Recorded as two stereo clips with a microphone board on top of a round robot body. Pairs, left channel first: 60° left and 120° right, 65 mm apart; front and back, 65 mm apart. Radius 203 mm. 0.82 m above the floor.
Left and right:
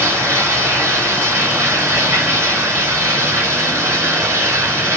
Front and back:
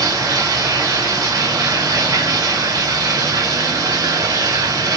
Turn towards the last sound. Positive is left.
turn(degrees=-175)